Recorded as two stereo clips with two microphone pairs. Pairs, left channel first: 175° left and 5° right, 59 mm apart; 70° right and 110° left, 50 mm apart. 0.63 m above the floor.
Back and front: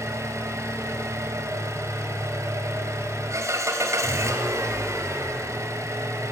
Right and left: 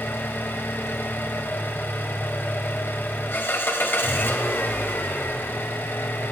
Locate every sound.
0.0 s an engine running: 30° right, 3 m